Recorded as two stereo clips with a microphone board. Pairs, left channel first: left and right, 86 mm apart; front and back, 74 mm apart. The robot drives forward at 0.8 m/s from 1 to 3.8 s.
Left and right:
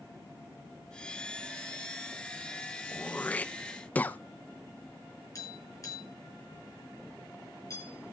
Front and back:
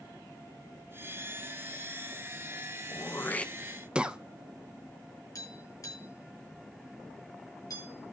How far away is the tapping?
About 5.5 m.